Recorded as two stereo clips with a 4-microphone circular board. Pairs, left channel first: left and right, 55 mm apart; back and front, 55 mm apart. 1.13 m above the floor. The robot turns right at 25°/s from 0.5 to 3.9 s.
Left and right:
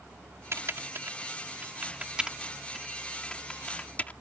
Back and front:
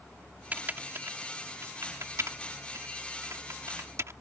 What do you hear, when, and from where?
0.5 s typing on a keyboard: 55° right; by 4.1 s 30° left